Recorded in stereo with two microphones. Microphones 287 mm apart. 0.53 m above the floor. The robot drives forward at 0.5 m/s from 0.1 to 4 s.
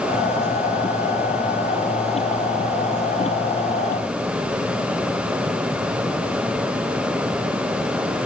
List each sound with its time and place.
Only background noise.